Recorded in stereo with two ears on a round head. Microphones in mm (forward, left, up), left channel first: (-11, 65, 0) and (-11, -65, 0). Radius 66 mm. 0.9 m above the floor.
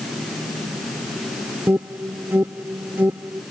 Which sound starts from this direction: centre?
An alarm, at 1.7 s.